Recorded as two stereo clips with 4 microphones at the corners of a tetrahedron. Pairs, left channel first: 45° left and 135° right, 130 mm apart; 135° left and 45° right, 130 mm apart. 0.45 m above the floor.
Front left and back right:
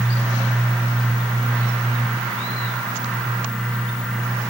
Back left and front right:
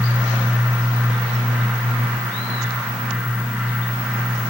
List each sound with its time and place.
Only background noise.